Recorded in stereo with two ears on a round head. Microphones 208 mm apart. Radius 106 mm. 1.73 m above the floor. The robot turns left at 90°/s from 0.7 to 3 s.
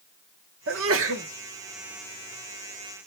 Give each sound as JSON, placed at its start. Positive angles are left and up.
{"t": 0.7, "sound": "a sneeze", "azimuth_deg": -70, "distance_m": 1.3}